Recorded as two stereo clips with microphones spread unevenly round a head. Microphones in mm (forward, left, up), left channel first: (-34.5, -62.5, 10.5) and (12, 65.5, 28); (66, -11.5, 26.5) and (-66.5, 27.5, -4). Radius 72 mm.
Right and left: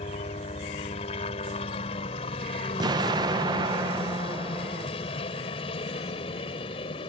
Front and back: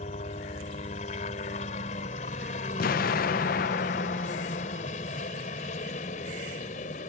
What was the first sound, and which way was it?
A helicopter, 60° right.